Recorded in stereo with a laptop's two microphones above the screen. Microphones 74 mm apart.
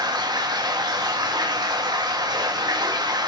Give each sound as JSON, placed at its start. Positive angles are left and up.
{"t": 0.0, "sound": "running water", "side_deg": -70, "distance_m": 0.7}